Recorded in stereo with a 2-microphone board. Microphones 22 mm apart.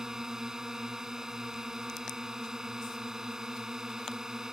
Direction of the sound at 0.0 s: 30° right (ahead or behind).